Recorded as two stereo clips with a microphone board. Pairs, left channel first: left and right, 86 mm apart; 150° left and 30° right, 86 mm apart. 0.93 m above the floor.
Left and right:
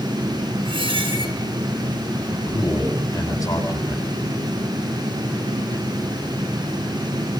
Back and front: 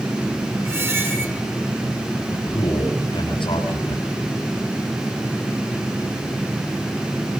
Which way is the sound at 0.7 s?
90° right.